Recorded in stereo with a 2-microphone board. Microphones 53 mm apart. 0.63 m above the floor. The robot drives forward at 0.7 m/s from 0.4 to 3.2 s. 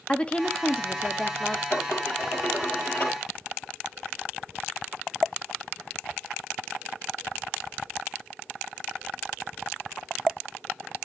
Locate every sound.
0.1 s a woman speaking: 20° left (ahead or behind), 1.0 m; by 1.6 s 15° left (ahead or behind), 1.5 m
1.7 s dishes clattering: 55° left (ahead or behind), 8.5 m; by 3.2 s 50° left (ahead or behind), 9 m